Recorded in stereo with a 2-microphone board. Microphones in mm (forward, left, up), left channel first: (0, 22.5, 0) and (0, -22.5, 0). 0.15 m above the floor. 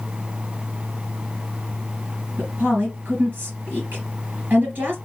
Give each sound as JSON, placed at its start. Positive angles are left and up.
{"t": 2.4, "sound": "a woman speaking", "side_deg": -45, "distance_m": 3.0}